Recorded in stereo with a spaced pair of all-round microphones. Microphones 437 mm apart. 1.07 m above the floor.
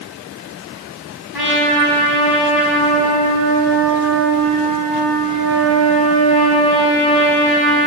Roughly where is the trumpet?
Right.